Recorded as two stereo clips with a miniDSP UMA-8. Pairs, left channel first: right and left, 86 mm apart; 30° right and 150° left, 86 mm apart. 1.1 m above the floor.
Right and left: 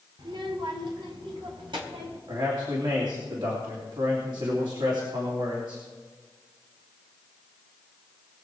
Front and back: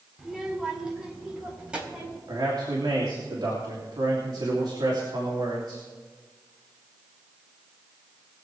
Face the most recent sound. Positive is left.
turn(degrees=115)